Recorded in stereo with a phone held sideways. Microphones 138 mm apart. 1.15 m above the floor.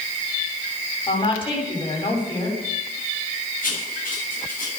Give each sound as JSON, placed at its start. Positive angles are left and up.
{"t": 1.1, "sound": "a woman speaking", "side_deg": 40, "distance_m": 7.0}
{"t": 3.6, "sound": "writing", "side_deg": 80, "distance_m": 8.5}